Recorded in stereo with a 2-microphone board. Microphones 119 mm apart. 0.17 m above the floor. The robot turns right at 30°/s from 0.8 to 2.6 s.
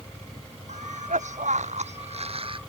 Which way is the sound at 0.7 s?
100° right.